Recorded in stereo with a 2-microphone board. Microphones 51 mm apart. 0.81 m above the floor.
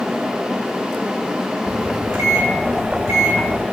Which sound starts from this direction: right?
A microwave, at 1.7 s.